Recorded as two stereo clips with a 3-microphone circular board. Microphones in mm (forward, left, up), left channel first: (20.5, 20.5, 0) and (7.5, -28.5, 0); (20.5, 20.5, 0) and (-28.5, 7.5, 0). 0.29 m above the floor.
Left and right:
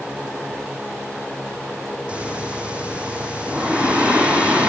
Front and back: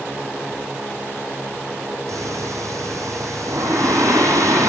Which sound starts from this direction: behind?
Breathing, at 2.1 s.